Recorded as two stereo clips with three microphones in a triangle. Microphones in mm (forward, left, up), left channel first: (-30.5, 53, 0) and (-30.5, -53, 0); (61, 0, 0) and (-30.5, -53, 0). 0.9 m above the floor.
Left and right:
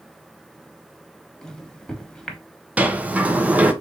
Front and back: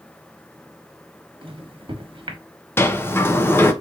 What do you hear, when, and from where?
1.4 s a microwave: 175° left, 1.0 m
2.8 s a sliding door: 25° right, 0.6 m